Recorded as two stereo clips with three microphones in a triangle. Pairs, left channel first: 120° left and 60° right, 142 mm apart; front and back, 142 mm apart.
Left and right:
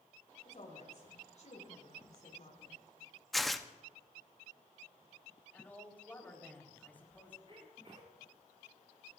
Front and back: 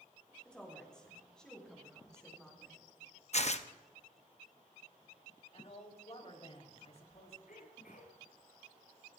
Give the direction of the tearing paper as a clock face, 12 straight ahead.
11 o'clock.